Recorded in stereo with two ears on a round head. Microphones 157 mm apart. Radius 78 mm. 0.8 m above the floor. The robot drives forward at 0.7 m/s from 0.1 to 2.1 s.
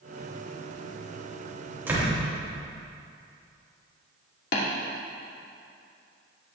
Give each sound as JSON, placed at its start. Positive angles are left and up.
{"t": 1.9, "sound": "a door slam", "side_deg": -10, "distance_m": 3.0}
{"t": 4.5, "sound": "tapping", "side_deg": 65, "distance_m": 2.5}